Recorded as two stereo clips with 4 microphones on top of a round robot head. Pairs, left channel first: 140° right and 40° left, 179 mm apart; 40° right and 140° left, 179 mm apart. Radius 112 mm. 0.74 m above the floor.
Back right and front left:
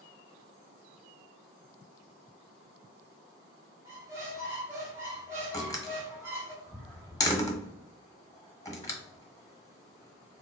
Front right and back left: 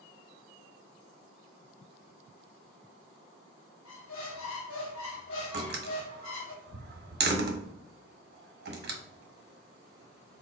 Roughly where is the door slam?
Behind left.